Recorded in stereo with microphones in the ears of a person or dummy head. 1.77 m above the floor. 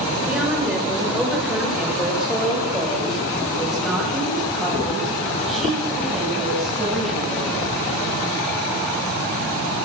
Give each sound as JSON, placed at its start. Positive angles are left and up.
{"t": 0.3, "sound": "a woman speaking", "side_deg": -5, "distance_m": 6.0}